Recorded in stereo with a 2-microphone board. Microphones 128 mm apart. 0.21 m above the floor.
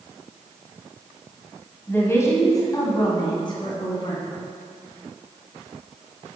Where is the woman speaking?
15° left (ahead or behind), 1.6 m; by 4.2 s 45° left (ahead or behind), 2 m.